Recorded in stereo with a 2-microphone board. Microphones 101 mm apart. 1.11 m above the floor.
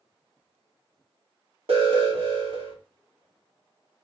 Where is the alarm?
70° right (ahead or behind), 1.7 m.